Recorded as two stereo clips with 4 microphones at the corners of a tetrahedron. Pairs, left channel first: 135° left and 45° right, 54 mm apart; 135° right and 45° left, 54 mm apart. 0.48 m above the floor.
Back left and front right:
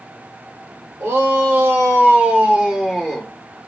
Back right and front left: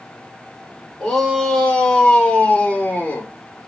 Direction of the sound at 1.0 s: 50° right.